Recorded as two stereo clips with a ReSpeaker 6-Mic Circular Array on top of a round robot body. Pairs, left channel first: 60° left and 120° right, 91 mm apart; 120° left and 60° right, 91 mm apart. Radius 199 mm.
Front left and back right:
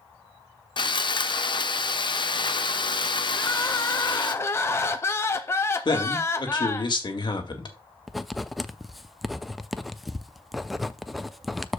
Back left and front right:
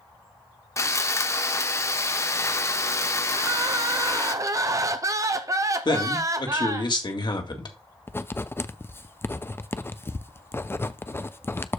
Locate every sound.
0.8 s sawing: 70° left, 1.0 m
3.4 s crying: 5° right, 0.6 m
5.8 s a man speaking: 90° left, 2 m
8.1 s writing: 150° left, 0.8 m